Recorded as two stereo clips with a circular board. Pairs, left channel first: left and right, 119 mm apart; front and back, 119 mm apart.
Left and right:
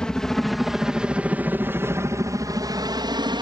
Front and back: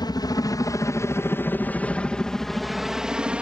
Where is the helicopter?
10° left; by 3.4 s 105° right.